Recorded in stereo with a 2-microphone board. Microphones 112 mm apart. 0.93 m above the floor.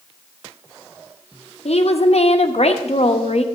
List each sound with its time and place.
1.6 s a woman speaking: 65° left (ahead or behind), 1.1 m